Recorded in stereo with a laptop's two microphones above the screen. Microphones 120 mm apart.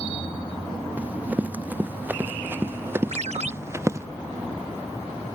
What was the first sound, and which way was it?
Running footsteps, 15° right (ahead or behind).